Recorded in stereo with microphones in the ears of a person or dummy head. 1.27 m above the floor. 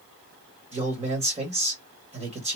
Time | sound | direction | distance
0.7 | a man speaking | 35° right (ahead or behind) | 1.9 m